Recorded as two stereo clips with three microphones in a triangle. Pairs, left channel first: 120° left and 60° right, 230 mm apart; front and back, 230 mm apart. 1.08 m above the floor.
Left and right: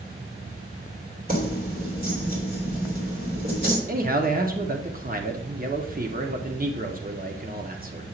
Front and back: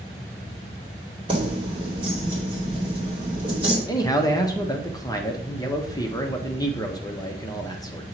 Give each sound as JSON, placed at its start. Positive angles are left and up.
{"t": 1.3, "sound": "keys jangling", "azimuth_deg": -110, "distance_m": 2.0}
{"t": 3.9, "sound": "a man speaking", "azimuth_deg": -65, "distance_m": 0.8}